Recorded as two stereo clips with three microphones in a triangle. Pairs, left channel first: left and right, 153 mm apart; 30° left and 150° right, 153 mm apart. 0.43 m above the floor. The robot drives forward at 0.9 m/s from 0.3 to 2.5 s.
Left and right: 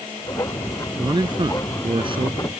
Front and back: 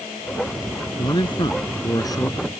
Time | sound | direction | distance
1.0 | a man speaking | 30° right | ?